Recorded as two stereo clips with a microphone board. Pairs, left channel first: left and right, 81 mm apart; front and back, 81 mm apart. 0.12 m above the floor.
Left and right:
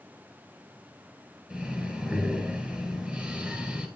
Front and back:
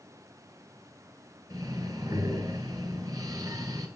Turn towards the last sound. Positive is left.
turn(degrees=-160)